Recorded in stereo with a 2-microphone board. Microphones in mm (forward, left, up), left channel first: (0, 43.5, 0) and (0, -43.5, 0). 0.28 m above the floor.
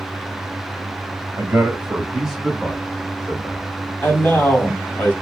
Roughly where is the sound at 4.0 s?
Left.